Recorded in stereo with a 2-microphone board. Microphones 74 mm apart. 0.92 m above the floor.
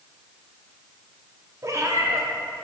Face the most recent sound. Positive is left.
turn(degrees=-45)  # may be behind; listen again after turning